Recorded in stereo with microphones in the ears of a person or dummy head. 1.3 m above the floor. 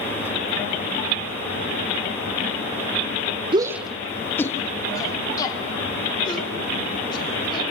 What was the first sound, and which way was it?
A shout, 30° right (ahead or behind).